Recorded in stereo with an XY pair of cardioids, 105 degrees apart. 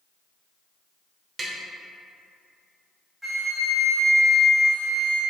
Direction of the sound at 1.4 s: 40° right.